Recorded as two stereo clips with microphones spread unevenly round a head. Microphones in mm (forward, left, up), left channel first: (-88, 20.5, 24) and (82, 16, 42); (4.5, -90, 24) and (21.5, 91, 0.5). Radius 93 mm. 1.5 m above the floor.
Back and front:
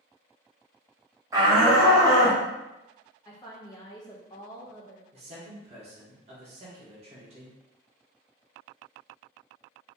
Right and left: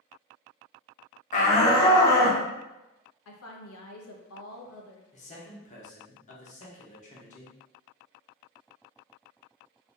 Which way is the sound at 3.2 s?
110° right.